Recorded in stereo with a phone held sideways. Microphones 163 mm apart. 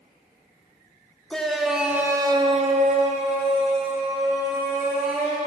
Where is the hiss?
No hiss in this recording.